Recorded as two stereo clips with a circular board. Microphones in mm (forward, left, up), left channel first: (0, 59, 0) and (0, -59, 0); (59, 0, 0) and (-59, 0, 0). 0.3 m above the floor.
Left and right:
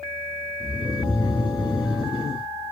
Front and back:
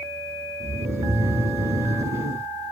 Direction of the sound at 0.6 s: 120° left.